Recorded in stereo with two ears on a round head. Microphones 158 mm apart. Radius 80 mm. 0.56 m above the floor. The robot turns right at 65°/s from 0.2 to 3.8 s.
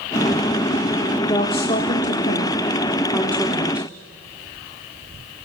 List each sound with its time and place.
1.2 s a woman speaking: 20° left (ahead or behind), 1.3 m; by 3.9 s 10° right (ahead or behind), 1.3 m